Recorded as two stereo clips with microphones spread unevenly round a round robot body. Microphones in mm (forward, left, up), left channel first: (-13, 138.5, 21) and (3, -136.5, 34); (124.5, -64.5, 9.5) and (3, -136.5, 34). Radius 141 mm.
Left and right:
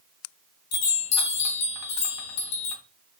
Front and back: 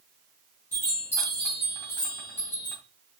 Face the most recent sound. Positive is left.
turn(degrees=105)